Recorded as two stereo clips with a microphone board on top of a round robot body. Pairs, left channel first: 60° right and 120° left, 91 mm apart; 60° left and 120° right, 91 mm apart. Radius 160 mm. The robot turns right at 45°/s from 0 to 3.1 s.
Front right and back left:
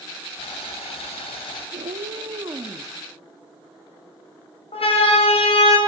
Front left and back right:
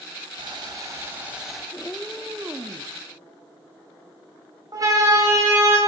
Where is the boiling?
85° right, 3 m; by 1.6 s 30° right, 3 m.